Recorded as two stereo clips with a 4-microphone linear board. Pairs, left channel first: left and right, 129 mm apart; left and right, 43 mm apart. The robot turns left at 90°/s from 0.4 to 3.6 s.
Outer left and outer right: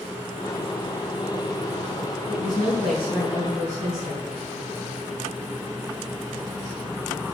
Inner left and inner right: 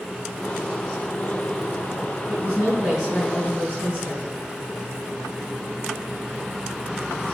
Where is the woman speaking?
100° right, 3.5 m; by 4.3 s 140° left, 3.5 m.